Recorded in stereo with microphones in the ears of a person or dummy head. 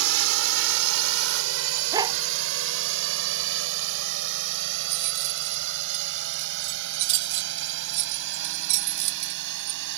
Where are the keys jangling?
65° right (ahead or behind).